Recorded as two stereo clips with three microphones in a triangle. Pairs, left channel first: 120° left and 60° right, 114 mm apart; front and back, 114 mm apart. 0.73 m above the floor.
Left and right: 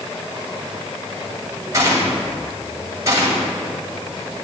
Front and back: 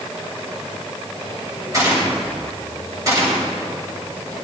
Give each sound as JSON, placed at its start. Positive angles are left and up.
{"t": 1.7, "sound": "a gunshot", "azimuth_deg": -120, "distance_m": 2.5}